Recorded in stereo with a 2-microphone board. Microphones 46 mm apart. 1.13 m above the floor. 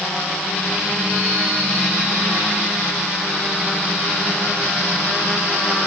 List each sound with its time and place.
Only background noise.